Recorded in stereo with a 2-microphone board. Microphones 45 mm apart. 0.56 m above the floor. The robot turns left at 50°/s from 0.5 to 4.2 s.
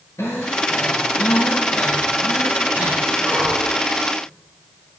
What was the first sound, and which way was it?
Breathing, 85° left.